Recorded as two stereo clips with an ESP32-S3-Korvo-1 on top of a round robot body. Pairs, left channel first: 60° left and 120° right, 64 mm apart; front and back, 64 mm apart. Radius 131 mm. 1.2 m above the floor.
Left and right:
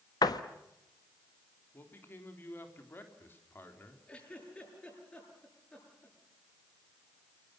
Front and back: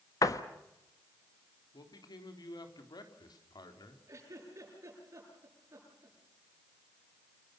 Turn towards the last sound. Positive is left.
turn(degrees=130)